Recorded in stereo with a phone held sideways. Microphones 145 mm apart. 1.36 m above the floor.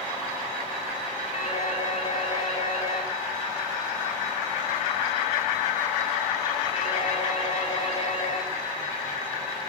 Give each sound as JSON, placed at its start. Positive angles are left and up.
{"t": 1.3, "sound": "a phone ringing", "side_deg": 45, "distance_m": 9.5}